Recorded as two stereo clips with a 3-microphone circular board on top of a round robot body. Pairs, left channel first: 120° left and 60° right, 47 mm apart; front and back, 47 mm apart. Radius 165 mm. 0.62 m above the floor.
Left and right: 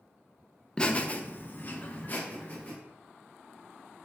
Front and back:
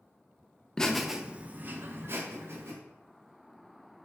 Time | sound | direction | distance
0.8 | laughter | 65° left | 0.7 m